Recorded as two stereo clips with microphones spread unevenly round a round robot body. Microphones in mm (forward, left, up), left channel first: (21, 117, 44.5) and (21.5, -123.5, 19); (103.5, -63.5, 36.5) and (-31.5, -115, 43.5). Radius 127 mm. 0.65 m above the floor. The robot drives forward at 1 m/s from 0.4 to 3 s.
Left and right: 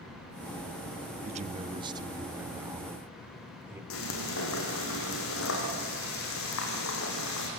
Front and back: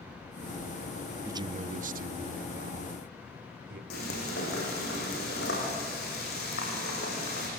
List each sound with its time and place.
1.2 s a man speaking: 90° right, 0.6 m; by 3.8 s 170° right, 1.8 m
3.9 s frying: 55° left, 6 m